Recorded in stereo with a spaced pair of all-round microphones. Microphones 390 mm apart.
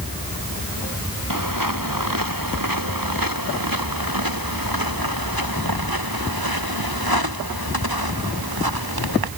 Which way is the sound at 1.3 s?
55° right (ahead or behind).